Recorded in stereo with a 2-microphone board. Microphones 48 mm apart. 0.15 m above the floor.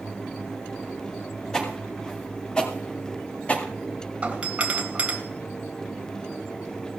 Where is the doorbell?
30° right (ahead or behind), 2 m.